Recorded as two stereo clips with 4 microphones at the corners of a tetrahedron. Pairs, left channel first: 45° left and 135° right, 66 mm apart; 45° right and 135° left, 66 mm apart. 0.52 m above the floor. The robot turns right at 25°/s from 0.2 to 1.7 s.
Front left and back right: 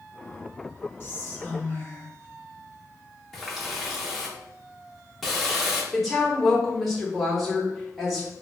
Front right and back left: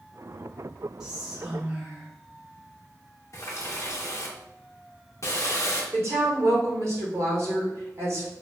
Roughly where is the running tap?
Ahead right.